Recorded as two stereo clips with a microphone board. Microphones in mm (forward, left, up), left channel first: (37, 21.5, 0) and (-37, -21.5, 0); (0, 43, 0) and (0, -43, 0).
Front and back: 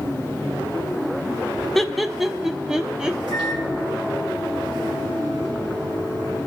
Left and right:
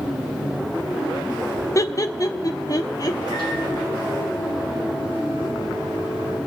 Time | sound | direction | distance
1.8 | laughter | 115° left | 0.6 m
3.3 | a microwave | 125° right | 7 m